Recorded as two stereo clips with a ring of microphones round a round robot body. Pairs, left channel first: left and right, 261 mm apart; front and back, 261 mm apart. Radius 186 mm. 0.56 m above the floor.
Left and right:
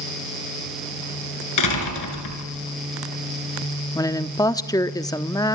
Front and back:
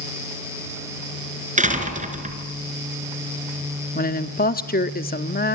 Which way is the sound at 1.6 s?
120° left.